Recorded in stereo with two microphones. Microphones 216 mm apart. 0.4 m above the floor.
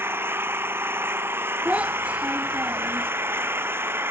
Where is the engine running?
10° right (ahead or behind).